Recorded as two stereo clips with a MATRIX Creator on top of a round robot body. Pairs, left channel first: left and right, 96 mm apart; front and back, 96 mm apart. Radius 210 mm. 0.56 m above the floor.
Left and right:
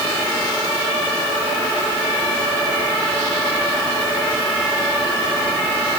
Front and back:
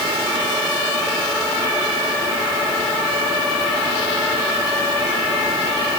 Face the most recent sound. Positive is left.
No sound to turn to.